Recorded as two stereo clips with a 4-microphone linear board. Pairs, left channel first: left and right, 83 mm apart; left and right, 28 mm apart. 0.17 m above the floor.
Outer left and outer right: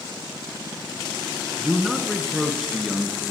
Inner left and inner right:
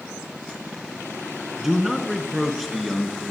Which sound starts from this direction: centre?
A man speaking, at 1.6 s.